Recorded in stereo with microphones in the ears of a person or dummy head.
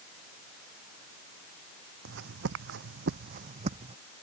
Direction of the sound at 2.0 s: 65° right (ahead or behind).